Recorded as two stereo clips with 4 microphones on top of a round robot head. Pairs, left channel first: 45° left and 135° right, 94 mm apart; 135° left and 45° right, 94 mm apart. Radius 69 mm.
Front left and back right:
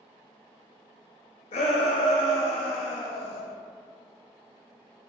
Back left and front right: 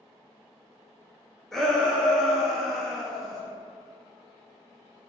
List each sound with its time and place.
1.5 s a shout: 45° left, 0.5 m